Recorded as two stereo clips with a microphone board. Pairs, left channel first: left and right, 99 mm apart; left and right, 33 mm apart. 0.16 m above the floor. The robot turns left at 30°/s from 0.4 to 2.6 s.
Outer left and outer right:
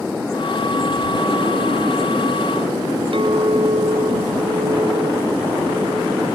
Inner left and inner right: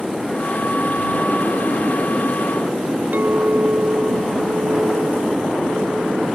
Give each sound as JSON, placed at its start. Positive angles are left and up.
{"t": 3.1, "sound": "a clink", "side_deg": -60}